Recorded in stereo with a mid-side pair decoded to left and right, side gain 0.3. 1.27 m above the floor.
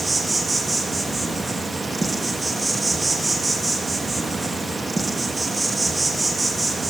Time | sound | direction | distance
0.0 | an insect | 25° right | 1.2 m